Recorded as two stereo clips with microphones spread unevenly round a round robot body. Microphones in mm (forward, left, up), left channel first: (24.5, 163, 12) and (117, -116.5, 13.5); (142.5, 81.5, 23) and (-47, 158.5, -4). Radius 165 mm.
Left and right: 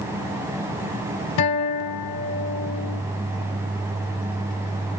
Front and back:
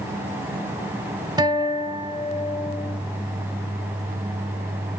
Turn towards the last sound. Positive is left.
turn(degrees=85)